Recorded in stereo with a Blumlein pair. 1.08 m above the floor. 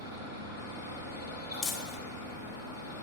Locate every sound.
0.0 s a fan: 65° left, 3.5 m
1.6 s crumpling: 35° left, 1.2 m